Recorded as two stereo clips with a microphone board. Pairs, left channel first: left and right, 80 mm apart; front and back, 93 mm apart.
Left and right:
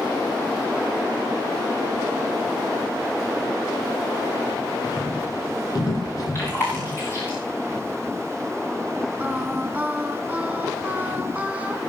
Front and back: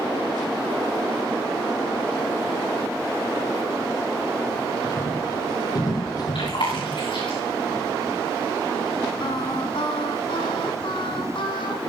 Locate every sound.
4.8 s footsteps: 50° left, 7 m; by 6.9 s 45° left, 5 m
6.3 s chewing: 30° left, 9 m
9.2 s singing: 15° right, 3 m